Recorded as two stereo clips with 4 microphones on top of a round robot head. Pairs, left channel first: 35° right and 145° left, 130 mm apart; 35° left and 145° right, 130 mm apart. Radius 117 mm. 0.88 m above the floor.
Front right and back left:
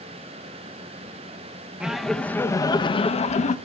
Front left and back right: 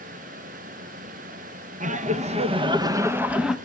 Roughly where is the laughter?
Behind right.